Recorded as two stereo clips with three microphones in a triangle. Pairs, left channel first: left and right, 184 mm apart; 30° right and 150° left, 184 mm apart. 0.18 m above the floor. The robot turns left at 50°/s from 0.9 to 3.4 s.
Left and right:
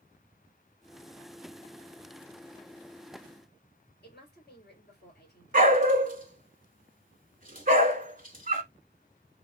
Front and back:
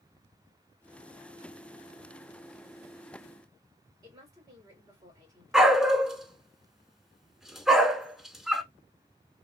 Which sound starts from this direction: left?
A woman speaking, at 4.0 s.